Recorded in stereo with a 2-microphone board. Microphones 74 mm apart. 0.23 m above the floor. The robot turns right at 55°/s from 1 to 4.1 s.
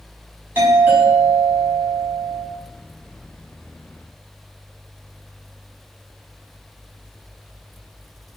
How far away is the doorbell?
About 1.8 m.